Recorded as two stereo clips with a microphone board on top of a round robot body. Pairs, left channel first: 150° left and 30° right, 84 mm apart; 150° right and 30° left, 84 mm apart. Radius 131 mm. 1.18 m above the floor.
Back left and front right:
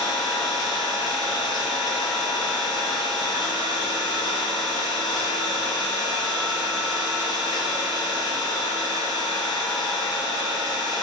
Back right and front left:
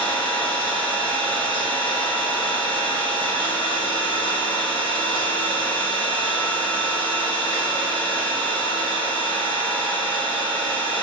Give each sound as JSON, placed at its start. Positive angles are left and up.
{"t": 0.0, "sound": "an engine running", "azimuth_deg": -175, "distance_m": 3.5}